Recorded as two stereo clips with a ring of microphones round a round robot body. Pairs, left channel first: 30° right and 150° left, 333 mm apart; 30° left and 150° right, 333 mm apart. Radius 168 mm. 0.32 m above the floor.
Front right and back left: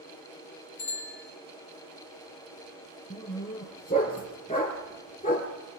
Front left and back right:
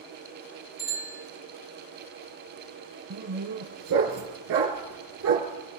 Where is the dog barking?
100° right, 3 m.